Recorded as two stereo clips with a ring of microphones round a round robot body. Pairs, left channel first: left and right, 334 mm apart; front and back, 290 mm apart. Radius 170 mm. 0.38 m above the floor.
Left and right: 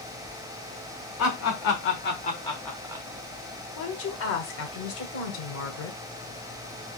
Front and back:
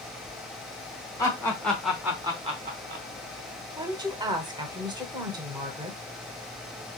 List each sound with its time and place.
1.2 s laughter: 75° left, 1.5 m; by 3.0 s 160° right, 1.1 m
3.8 s a woman speaking: 110° left, 1.0 m